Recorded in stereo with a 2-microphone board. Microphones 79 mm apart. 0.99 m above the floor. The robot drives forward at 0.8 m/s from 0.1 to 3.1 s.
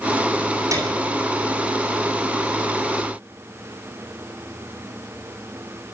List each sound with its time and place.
0.7 s a piano: 45° right (ahead or behind), 9 m